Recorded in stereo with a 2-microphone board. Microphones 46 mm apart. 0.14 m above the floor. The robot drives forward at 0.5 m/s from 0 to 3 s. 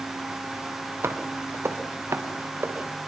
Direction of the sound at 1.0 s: 75° right (ahead or behind).